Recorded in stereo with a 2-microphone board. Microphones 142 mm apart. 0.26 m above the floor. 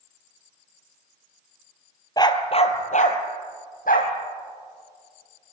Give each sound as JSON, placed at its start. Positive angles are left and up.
{"t": 2.2, "sound": "a dog barking", "side_deg": 30, "distance_m": 1.4}